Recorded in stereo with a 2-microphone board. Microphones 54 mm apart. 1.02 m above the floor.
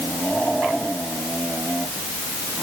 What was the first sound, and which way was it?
Only background noise.